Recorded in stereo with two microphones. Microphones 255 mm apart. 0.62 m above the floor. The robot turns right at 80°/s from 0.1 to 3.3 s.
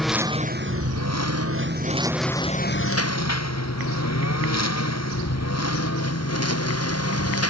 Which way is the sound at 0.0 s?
Centre (ahead or behind).